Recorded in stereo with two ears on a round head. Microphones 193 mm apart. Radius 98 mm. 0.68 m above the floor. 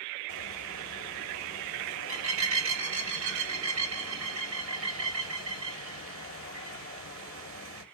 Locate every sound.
0.3 s a bird: 65° right (ahead or behind), 1.6 m